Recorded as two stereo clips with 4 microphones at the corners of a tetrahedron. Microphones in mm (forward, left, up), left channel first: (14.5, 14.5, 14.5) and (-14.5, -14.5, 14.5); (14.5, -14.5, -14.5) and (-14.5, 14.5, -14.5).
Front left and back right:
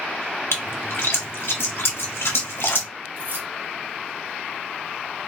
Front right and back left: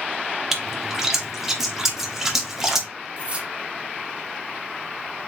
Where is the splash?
55° left, 1.1 m.